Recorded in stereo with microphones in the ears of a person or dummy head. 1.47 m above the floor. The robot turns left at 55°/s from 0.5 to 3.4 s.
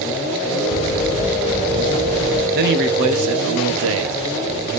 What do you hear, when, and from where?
0.7 s footsteps: 35° left (ahead or behind), 2 m; by 2.5 s 25° left (ahead or behind), 1.5 m
2.5 s a man speaking: 55° right, 1.0 m; by 4.2 s 100° right, 1.0 m